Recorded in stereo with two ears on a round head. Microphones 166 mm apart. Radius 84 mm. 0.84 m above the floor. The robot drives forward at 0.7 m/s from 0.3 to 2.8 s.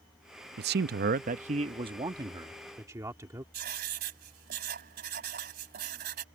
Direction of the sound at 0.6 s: 55° right (ahead or behind).